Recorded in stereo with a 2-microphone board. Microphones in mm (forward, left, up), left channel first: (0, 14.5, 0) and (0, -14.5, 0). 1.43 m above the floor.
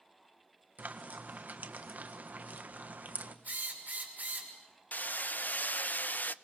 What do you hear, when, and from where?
0.8 s frying: 65° right (ahead or behind), 1.4 m
3.5 s a drill: 70° right (ahead or behind), 6.5 m
4.9 s hammering: 65° left (ahead or behind), 0.5 m